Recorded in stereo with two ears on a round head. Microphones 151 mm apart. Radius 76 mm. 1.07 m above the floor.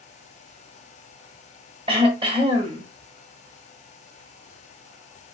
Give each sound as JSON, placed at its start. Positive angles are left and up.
{"t": 1.9, "sound": "throat clearing", "side_deg": -30, "distance_m": 1.3}